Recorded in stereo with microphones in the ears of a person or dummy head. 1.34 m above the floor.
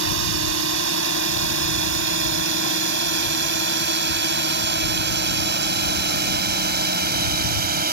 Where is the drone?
60° right (ahead or behind); by 7.9 s 40° right (ahead or behind).